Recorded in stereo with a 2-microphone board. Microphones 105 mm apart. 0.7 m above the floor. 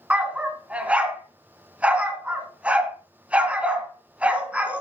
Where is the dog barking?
10° right (ahead or behind), 2.0 m.